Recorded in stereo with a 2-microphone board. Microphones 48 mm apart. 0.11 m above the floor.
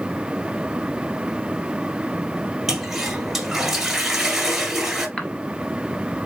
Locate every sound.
2.7 s a toilet flushing: 5° right (ahead or behind), 1.2 m
5.2 s a cough: 25° left (ahead or behind), 1.6 m